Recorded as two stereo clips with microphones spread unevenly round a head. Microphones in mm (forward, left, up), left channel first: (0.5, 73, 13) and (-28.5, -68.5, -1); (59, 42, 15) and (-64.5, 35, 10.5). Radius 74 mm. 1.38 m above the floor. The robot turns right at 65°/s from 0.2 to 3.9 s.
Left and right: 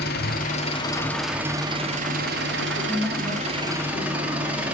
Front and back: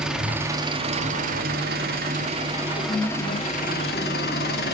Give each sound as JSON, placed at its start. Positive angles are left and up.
{"t": 0.0, "sound": "an engine running", "azimuth_deg": 100, "distance_m": 2.5}
{"t": 2.8, "sound": "a woman speaking", "azimuth_deg": -25, "distance_m": 2.5}